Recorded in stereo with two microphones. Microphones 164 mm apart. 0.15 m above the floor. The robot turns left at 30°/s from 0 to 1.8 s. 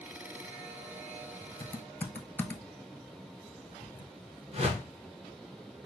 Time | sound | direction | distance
1.6 | typing on a keyboard | 15° left (ahead or behind) | 0.6 m
4.5 | a whoosh | 40° right (ahead or behind) | 1.7 m